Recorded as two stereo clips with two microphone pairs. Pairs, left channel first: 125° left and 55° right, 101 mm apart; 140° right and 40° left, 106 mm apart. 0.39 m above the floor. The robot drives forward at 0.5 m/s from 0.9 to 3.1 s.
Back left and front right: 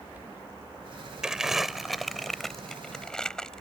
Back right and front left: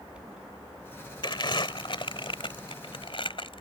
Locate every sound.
1.2 s crumpling: 135° right; by 3.6 s 155° right